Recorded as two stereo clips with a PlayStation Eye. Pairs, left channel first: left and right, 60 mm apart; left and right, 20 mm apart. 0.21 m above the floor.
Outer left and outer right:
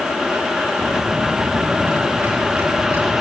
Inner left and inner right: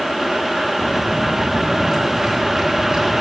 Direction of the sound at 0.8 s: 40° right (ahead or behind).